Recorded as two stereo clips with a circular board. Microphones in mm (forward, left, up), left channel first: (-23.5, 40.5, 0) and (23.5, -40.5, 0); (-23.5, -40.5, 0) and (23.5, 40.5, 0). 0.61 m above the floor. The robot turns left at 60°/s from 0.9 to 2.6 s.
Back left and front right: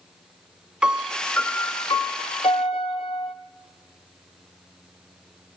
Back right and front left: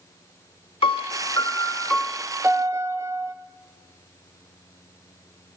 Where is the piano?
140° right, 0.7 m; by 3.3 s 120° left, 0.7 m.